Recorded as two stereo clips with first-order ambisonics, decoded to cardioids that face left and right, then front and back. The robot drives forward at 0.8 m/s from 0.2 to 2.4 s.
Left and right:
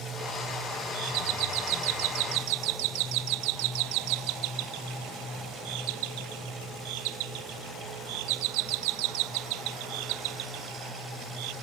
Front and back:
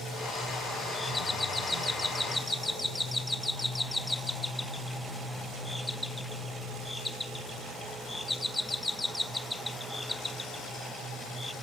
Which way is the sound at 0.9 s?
80° right.